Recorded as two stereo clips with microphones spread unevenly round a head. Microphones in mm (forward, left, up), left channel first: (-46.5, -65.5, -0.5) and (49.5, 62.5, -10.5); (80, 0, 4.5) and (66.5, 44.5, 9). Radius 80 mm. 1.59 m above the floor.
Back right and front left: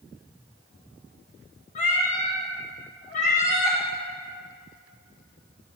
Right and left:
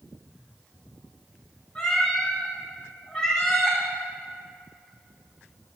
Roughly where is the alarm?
I don't hear an alarm.